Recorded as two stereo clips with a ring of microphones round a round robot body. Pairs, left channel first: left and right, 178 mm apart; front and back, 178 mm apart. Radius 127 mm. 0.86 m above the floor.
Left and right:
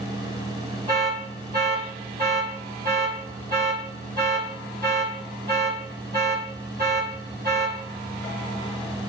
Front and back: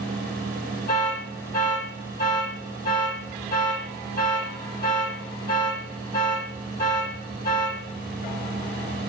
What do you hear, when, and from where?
0.9 s an alarm: 75° right, 4.5 m